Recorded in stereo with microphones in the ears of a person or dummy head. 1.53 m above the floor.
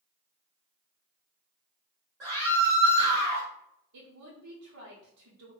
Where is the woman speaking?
85° right, 0.8 m.